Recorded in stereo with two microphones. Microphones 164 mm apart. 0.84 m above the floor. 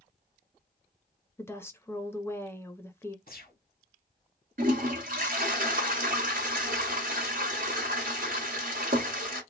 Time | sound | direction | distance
1.4 | a woman speaking | 15° left (ahead or behind) | 0.6 m
3.3 | a gunshot | 65° left (ahead or behind) | 1.1 m
4.6 | a toilet flushing | 60° right (ahead or behind) | 1.4 m